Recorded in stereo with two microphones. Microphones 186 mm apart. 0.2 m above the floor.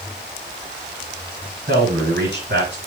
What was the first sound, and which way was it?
A man speaking, 60° right (ahead or behind).